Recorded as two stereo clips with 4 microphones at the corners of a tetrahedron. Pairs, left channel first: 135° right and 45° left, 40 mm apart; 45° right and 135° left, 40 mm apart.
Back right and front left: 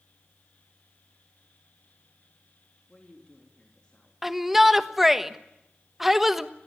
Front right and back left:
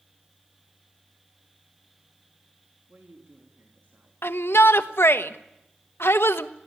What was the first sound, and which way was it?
A woman speaking, 160° left.